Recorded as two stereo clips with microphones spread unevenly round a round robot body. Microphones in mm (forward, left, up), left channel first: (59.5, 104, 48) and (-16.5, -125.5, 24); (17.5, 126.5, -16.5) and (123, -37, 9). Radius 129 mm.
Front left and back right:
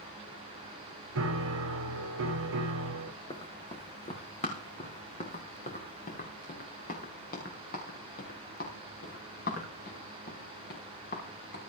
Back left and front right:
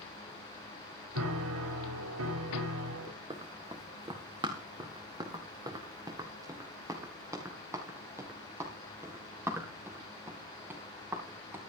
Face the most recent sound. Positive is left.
turn(degrees=25)